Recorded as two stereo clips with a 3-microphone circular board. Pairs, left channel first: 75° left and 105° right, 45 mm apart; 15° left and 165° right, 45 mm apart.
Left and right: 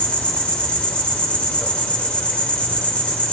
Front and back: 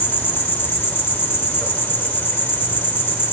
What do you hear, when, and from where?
0.0 s an insect: 15° left, 1.6 m